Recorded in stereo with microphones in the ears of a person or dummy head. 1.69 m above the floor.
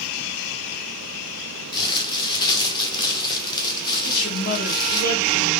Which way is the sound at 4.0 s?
55° left (ahead or behind).